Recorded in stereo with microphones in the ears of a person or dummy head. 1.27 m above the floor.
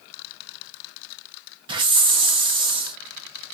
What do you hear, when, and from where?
1.7 s a hiss: 30° right (ahead or behind), 0.7 m